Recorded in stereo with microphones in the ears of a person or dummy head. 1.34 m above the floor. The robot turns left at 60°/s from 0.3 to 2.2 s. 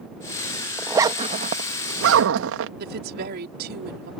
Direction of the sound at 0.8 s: 10° right (ahead or behind).